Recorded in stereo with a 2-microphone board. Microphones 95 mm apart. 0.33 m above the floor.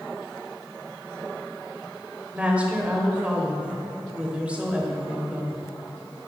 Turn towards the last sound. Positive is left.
turn(degrees=-15)  # may be behind; listen again after turning